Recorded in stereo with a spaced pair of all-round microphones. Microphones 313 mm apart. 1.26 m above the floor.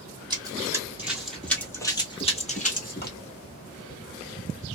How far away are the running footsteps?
About 1.7 m.